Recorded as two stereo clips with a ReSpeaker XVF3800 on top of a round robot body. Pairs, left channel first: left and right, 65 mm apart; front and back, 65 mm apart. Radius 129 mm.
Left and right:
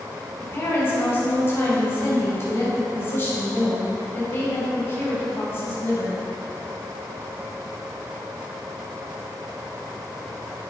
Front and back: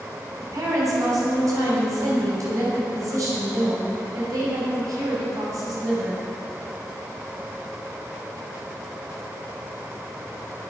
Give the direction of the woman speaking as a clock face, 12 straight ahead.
7 o'clock.